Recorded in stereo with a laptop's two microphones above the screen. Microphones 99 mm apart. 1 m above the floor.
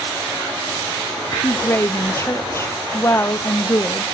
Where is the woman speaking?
30° left (ahead or behind), 0.5 m.